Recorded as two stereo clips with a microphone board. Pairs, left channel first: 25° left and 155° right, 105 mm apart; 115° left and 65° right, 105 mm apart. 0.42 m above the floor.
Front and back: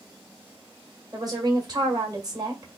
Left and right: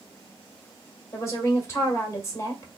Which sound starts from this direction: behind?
A woman speaking, at 1.1 s.